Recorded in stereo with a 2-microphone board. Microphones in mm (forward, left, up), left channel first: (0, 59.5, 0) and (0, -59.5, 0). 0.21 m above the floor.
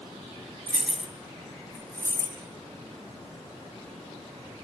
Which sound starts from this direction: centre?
Keys jangling, at 0.7 s.